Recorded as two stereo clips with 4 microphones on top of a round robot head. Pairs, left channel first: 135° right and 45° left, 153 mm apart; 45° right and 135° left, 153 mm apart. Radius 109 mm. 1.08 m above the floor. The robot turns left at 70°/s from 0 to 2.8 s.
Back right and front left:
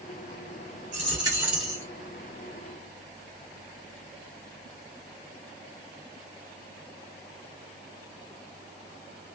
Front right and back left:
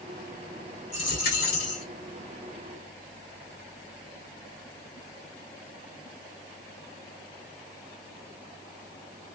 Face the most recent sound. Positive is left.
turn(degrees=-125)